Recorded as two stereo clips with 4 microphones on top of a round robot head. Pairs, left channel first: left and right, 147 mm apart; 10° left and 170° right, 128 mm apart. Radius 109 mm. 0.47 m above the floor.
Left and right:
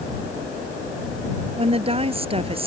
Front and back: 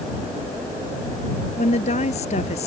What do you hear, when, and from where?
1.6 s a woman speaking: 40° right